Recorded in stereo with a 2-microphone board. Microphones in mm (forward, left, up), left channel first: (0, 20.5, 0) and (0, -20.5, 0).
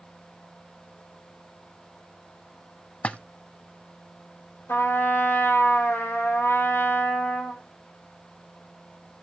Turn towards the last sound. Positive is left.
turn(degrees=65)  # may be behind; listen again after turning